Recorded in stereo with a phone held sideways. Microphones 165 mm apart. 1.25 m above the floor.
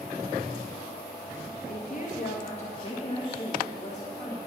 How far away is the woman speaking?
About 1.9 m.